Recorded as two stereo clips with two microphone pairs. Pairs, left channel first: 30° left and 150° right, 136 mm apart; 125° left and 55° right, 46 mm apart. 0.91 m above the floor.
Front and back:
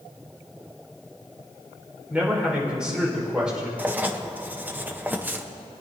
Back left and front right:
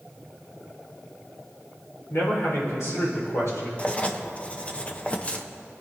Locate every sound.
2.1 s a man speaking: 125° left, 4 m
3.8 s writing: 145° left, 0.7 m